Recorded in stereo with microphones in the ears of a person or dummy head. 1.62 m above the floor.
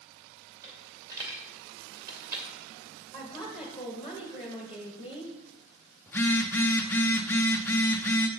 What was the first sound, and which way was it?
A dropped coin, 15° right (ahead or behind).